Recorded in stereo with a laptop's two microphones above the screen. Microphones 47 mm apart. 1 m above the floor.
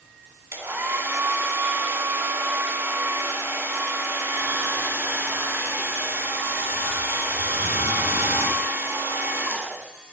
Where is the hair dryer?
65° right (ahead or behind), 1.8 m.